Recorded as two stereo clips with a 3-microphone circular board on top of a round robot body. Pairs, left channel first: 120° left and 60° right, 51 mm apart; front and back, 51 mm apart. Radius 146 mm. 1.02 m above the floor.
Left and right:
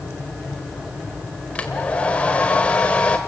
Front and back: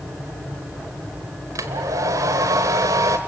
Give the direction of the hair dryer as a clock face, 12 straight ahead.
6 o'clock.